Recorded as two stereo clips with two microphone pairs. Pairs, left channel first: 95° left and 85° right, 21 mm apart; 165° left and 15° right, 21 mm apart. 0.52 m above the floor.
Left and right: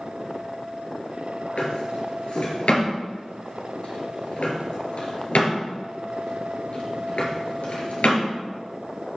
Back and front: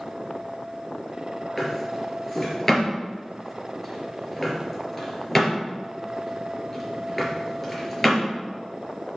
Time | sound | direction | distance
1.6 | a drawer | 90° left | 2.5 m